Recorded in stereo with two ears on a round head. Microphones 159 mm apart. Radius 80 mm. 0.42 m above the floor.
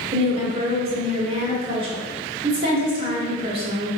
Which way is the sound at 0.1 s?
35° right (ahead or behind).